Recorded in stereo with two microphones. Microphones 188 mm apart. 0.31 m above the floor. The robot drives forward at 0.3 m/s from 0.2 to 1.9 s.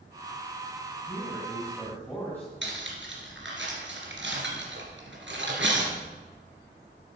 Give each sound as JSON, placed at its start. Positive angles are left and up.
{"t": 1.1, "sound": "a man speaking", "side_deg": 10, "distance_m": 3.0}
{"t": 2.6, "sound": "cutlery clinking", "side_deg": -80, "distance_m": 3.0}